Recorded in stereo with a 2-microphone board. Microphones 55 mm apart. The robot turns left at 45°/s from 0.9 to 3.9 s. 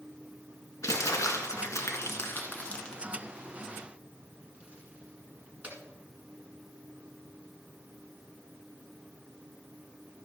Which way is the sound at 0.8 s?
65° left (ahead or behind).